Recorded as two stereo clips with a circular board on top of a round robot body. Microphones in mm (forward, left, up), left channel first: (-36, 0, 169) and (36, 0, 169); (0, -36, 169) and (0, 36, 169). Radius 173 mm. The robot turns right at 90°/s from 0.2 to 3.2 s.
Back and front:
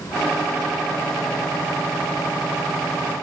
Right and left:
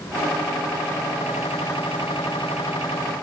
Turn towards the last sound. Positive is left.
No sound to turn to.